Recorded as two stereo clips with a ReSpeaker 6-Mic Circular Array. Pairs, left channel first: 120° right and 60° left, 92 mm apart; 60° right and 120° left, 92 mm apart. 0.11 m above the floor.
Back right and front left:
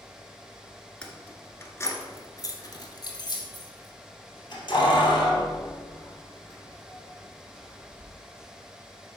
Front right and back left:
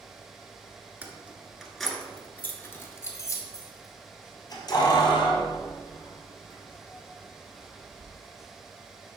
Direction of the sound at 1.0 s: 170° left.